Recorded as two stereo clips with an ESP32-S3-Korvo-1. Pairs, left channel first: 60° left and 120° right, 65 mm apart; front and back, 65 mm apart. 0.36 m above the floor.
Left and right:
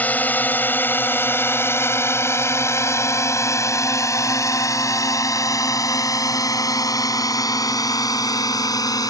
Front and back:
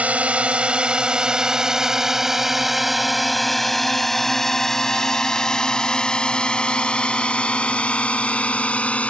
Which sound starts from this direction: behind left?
A drone, at 0.0 s.